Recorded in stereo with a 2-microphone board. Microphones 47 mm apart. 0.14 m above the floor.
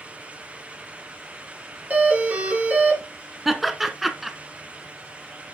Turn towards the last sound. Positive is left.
turn(degrees=-5)  # may be behind; listen again after turning